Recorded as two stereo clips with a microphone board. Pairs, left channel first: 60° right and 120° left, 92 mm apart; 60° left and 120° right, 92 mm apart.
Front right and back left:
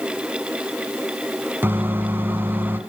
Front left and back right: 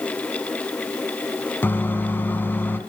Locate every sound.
1.6 s a microwave: 90° left, 1.2 m